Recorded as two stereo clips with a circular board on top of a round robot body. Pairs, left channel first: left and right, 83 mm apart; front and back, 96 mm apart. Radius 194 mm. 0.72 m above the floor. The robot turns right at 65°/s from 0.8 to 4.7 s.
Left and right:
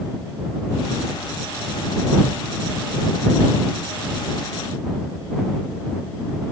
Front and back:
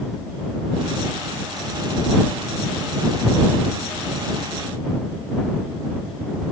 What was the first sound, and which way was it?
Only background noise.